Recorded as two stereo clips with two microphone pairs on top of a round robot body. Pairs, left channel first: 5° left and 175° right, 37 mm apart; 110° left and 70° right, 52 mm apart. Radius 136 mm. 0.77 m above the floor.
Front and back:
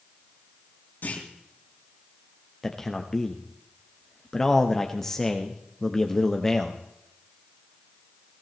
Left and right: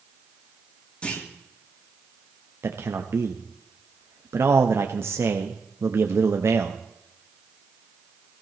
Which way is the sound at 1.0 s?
45° left.